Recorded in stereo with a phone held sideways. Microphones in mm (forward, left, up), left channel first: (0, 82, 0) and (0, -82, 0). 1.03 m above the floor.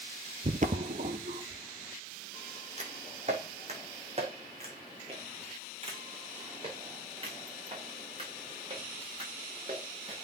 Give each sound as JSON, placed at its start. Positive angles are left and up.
{"t": 0.4, "sound": "footsteps", "side_deg": -50, "distance_m": 1.5}